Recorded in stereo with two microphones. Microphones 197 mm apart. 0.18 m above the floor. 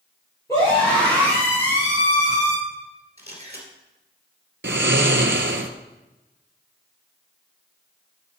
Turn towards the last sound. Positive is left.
turn(degrees=-70)  # may be behind; listen again after turning